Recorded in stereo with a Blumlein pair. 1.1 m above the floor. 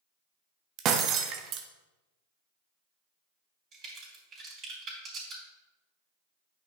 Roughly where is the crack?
Ahead right.